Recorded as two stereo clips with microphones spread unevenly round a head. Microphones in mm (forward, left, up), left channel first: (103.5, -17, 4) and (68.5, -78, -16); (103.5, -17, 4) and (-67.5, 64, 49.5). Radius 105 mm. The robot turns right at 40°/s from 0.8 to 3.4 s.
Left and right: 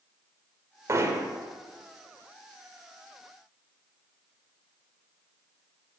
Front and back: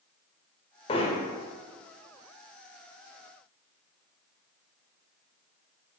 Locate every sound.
0.9 s hammering: 90° right, 1.0 m; by 1.3 s 75° right, 1.0 m